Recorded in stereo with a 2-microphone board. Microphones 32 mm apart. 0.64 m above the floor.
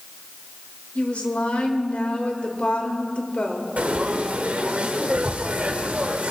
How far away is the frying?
About 1.4 m.